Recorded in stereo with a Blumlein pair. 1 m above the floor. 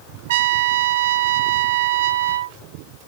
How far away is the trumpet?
About 1.3 m.